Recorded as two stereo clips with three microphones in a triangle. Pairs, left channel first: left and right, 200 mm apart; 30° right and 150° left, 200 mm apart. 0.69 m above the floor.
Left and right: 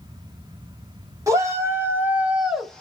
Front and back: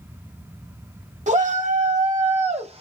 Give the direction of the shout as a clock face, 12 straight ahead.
5 o'clock.